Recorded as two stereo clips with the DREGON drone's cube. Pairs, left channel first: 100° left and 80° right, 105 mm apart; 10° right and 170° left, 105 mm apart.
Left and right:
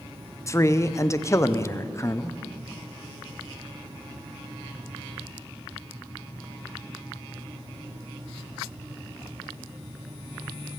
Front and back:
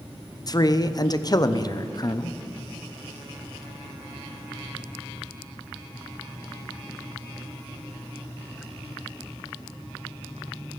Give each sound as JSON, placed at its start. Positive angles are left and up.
{"t": 0.5, "sound": "a man speaking", "azimuth_deg": 40, "distance_m": 0.6}